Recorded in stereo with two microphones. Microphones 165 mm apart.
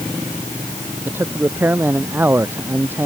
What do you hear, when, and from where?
1.1 s a man speaking: 15° right (ahead or behind)